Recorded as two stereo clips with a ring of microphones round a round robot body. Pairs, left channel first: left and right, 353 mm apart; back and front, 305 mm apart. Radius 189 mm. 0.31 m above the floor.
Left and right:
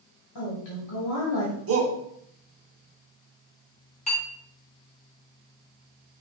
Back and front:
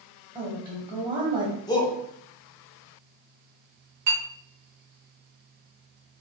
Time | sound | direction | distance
0.3 | a woman speaking | 70° left | 1.6 m
1.7 | a shout | 110° right | 1.1 m
4.1 | a clink | 20° left | 1.9 m